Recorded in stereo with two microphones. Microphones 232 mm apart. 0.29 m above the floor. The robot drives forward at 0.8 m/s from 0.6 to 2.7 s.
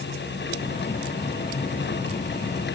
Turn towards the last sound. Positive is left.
No sound to turn to.